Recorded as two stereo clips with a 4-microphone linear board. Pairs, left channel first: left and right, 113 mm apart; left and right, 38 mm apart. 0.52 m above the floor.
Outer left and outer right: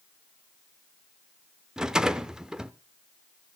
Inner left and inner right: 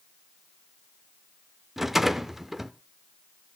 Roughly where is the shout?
I don't hear a shout.